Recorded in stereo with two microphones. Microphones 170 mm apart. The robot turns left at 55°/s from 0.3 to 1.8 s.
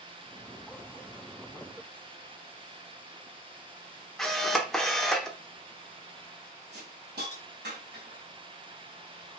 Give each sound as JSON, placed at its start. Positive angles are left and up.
{"t": 4.2, "sound": "a camera shutter", "side_deg": 0, "distance_m": 0.8}
{"t": 6.7, "sound": "a hiss", "side_deg": -75, "distance_m": 2.5}